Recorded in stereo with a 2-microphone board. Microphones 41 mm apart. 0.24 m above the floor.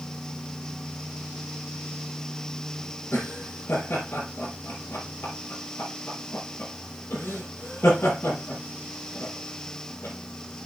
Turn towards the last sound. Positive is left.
turn(degrees=65)  # may be behind; listen again after turning